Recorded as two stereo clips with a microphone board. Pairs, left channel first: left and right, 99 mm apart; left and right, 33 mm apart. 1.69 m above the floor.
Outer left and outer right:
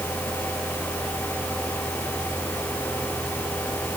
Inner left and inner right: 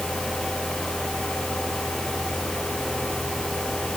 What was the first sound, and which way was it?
Only background noise.